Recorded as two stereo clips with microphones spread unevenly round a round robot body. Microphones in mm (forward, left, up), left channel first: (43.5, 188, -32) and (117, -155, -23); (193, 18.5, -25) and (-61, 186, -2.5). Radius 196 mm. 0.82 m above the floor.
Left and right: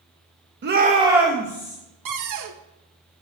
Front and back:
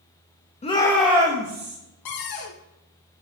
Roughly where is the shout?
Ahead right.